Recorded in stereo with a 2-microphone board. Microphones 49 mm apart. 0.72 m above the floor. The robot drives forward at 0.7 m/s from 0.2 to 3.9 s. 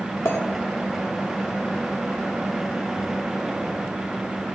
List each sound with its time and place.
0.2 s a clink: 60° left (ahead or behind), 1.3 m